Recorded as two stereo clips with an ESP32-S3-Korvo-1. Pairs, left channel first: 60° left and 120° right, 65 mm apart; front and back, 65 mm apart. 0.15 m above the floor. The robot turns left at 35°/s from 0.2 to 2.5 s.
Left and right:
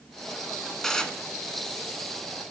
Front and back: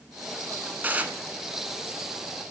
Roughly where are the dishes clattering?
Behind left.